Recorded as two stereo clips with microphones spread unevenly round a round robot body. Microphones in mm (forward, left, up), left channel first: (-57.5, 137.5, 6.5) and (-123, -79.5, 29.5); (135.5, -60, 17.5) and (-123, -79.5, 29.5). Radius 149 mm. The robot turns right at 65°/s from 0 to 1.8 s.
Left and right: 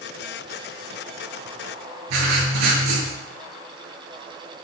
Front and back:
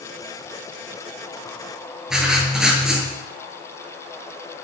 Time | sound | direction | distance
2.1 | writing | 90° right | 8 m